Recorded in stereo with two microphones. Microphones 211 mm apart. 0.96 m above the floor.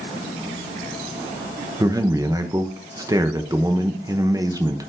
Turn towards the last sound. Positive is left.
turn(degrees=-15)  # may be behind; listen again after turning